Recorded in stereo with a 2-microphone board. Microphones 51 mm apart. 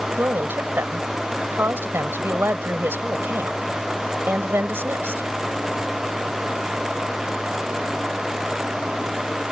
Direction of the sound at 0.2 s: 45° right (ahead or behind).